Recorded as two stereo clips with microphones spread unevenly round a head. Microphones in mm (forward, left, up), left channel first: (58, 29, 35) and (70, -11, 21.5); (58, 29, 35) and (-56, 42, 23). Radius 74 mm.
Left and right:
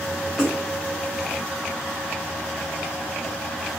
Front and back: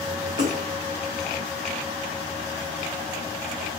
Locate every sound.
0.4 s a splash: 175° left, 1.3 m